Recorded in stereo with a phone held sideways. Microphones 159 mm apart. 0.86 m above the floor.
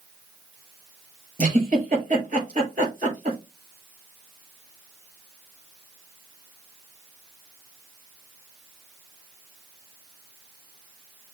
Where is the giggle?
60° right (ahead or behind), 4.5 m.